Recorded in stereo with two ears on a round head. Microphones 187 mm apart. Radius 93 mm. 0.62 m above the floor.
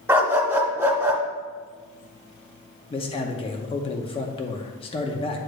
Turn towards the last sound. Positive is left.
turn(degrees=25)  # may be behind; listen again after turning